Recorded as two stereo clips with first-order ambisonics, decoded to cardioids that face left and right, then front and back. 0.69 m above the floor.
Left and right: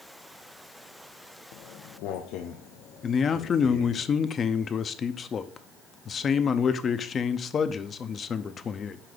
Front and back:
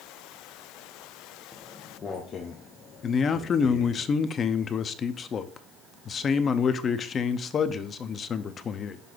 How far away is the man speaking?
About 0.6 m.